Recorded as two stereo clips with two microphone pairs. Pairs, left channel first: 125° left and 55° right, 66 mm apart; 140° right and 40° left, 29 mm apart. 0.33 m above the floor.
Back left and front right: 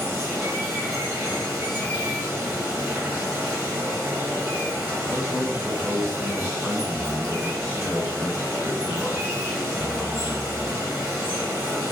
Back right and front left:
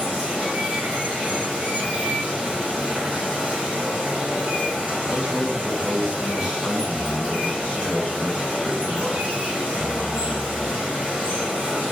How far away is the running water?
About 1.8 m.